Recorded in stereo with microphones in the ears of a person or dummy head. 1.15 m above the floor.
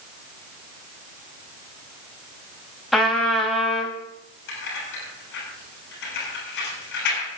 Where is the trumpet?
5° left (ahead or behind), 2 m.